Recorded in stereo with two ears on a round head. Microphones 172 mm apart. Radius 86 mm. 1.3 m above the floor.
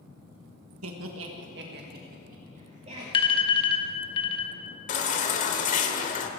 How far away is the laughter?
About 1.5 m.